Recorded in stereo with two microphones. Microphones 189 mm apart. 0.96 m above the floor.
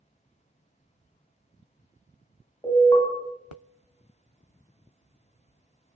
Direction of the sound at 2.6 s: 15° left (ahead or behind).